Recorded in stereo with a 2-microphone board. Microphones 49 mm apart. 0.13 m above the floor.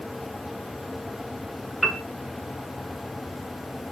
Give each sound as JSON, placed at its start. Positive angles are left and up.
{"t": 1.8, "sound": "a piano", "side_deg": 0, "distance_m": 0.6}